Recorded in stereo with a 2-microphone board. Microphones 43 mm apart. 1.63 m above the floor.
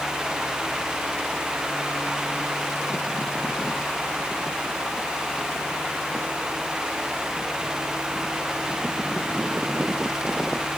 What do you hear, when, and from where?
Only background noise.